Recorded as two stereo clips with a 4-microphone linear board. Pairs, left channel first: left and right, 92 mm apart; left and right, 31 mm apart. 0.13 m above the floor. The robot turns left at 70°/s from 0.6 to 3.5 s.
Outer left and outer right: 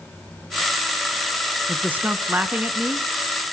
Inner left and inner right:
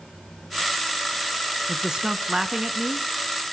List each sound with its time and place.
1.7 s a man speaking: 15° right (ahead or behind), 1.2 m; by 3.1 s 10° right (ahead or behind), 1.2 m